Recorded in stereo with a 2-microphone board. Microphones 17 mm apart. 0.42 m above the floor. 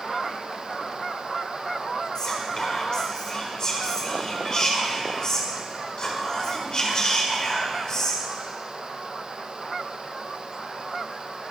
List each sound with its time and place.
2.1 s whispering: 40° left (ahead or behind), 1.8 m